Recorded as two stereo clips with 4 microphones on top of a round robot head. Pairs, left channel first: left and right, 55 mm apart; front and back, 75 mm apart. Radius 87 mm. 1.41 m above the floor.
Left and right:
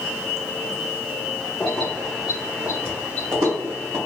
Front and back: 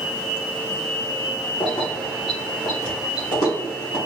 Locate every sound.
1.6 s keys jangling: 25° left, 0.9 m; by 4.0 s 60° right, 1.3 m